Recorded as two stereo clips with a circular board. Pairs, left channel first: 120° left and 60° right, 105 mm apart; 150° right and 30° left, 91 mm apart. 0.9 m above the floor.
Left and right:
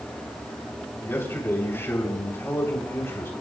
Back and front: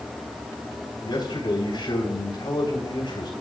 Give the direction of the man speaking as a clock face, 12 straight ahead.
6 o'clock.